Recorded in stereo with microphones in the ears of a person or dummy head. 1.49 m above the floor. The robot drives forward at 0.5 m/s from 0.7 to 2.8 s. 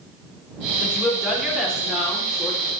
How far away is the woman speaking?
About 4 m.